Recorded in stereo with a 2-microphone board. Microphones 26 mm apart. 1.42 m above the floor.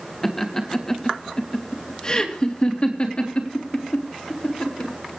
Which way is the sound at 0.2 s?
10° left (ahead or behind).